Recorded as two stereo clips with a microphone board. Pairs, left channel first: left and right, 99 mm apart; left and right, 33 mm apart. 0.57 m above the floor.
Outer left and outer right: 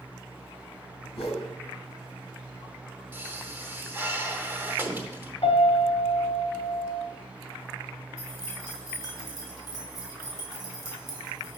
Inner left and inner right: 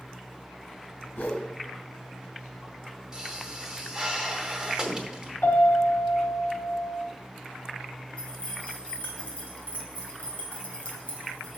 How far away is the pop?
About 0.9 m.